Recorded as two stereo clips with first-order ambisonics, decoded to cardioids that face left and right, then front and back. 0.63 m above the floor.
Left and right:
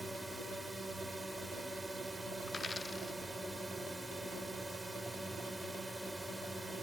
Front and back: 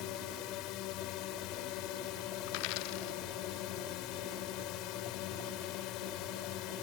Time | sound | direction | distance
0.0 | a drone | 5° right | ?
2.5 | a dropped coin | 10° left | ?